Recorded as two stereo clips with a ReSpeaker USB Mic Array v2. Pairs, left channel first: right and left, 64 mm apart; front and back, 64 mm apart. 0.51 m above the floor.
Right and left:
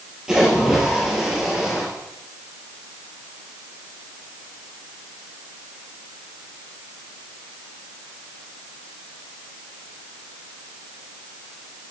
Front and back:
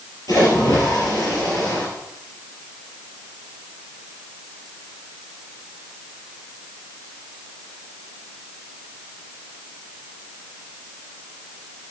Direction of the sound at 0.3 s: 15° left.